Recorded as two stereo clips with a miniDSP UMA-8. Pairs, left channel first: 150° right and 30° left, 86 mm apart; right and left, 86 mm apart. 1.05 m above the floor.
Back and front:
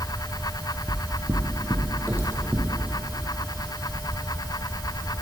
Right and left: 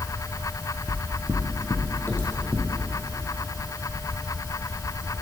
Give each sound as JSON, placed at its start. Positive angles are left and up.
{"t": 0.9, "sound": "footsteps", "azimuth_deg": -35, "distance_m": 1.8}